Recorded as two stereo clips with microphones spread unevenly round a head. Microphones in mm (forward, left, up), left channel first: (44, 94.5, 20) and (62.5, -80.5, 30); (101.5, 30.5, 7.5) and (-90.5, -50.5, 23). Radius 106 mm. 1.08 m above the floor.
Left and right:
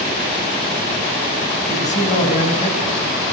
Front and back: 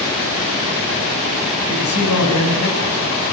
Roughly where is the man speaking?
Ahead left.